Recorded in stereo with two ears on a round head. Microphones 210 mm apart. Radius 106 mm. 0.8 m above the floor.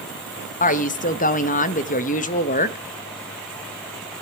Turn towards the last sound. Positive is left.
turn(degrees=35)  # may be behind; listen again after turning